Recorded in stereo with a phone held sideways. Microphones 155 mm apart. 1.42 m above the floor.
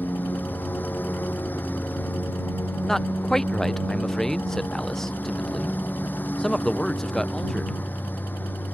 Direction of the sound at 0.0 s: 10° left (ahead or behind).